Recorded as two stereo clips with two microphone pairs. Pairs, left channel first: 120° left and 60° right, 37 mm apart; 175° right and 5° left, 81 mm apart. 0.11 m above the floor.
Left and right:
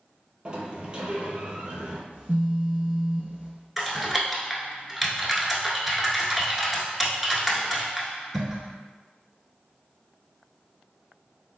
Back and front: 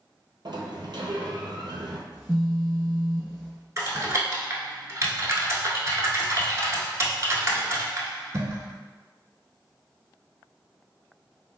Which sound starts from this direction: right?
A phone buzzing, at 2.1 s.